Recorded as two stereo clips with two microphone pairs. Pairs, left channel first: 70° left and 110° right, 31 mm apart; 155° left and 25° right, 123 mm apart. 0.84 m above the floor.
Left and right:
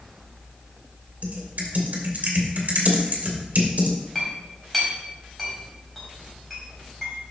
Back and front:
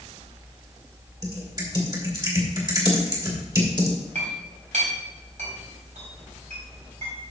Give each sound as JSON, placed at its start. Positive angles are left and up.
{"t": 1.2, "sound": "typing on a keyboard", "azimuth_deg": -80, "distance_m": 2.0}
{"t": 4.2, "sound": "a clink", "azimuth_deg": -15, "distance_m": 4.0}